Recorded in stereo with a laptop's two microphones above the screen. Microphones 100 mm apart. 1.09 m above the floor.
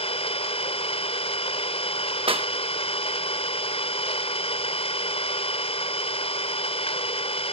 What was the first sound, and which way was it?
An engine running, 85° left.